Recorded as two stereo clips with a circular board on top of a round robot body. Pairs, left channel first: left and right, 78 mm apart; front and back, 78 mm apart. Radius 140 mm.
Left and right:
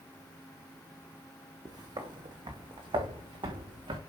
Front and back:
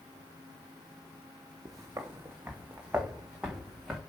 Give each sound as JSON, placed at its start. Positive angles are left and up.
{"t": 1.6, "sound": "footsteps", "azimuth_deg": -130, "distance_m": 1.6}